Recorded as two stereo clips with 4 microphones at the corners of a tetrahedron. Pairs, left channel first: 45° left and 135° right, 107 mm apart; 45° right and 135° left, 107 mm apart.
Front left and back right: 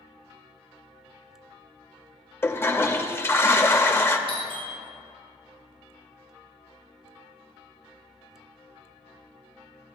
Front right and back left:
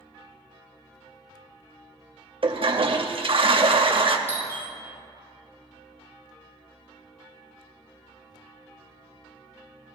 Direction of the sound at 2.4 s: 110° left.